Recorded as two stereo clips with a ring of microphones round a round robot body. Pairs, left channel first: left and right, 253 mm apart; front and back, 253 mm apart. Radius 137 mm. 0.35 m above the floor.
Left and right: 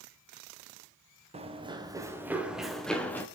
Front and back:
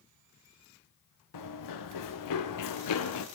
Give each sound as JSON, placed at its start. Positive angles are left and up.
{"t": 1.3, "sound": "running footsteps", "azimuth_deg": -25, "distance_m": 2.5}